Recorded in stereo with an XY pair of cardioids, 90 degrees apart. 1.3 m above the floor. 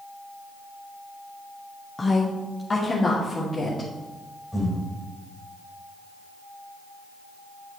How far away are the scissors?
No scissors in this recording.